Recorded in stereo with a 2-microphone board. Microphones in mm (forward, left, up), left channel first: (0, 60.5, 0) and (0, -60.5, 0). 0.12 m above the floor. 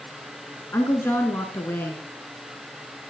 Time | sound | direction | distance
0.7 | a woman speaking | 20° left (ahead or behind) | 1.2 m